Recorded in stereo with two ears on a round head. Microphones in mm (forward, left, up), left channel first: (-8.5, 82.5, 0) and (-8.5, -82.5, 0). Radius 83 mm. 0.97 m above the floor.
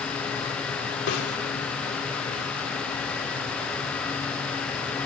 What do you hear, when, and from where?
1.1 s a snare drum: 70° left (ahead or behind), 2.5 m